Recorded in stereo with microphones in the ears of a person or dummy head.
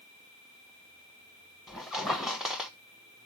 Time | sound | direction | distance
1.7 | a squeak | centre (ahead or behind) | 0.9 m